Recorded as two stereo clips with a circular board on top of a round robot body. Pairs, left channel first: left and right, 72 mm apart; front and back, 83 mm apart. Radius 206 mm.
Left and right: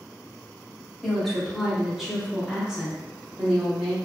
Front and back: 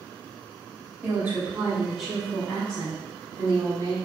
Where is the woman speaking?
175° left, 1.5 m; by 4.0 s 25° right, 1.7 m.